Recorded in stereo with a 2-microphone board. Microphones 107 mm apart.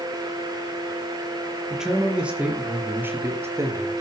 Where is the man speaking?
5° right (ahead or behind), 5 m; by 4.0 s 30° right (ahead or behind), 4.5 m.